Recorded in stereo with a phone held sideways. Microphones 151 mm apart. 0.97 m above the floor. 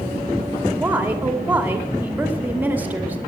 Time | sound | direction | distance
0.8 | a woman speaking | 10° right (ahead or behind) | 2 m